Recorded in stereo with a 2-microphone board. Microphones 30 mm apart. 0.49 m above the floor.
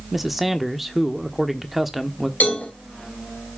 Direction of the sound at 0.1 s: 5° right (ahead or behind).